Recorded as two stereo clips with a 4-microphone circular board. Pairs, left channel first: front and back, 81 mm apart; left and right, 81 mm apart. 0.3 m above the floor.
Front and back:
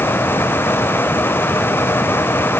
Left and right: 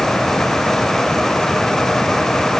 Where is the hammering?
No hammering in this recording.